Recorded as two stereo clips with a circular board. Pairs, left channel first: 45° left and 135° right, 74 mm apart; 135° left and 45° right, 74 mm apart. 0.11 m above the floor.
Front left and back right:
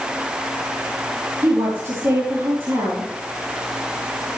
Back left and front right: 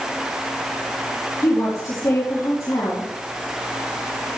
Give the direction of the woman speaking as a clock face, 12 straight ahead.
6 o'clock.